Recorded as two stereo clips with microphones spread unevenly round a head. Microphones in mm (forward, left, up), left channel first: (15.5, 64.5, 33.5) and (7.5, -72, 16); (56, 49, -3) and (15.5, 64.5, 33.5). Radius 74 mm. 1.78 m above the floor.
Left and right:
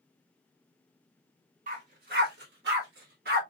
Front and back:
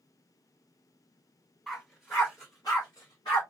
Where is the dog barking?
135° right, 2 m; by 3.4 s 75° right, 2 m.